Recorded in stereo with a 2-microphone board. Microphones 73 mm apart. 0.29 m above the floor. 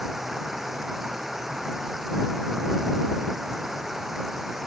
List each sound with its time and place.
0.0 s running water: 5° right (ahead or behind)